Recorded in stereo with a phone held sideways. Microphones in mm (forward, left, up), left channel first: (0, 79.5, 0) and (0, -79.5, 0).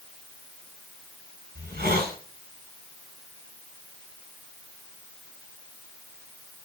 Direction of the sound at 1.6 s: 90° right.